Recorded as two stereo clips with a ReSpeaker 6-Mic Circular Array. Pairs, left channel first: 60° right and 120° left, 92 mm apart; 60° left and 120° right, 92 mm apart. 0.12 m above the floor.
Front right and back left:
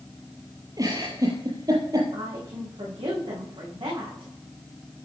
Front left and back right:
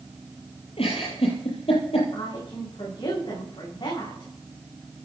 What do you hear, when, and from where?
0.8 s a giggle: 70° left, 8.5 m
2.1 s a woman speaking: 100° left, 9.5 m